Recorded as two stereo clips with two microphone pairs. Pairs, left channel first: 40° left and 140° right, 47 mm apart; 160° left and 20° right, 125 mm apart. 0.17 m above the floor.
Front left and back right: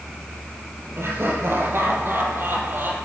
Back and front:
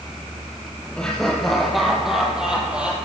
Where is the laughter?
115° right, 5 m; by 3.0 s 100° right, 5.5 m.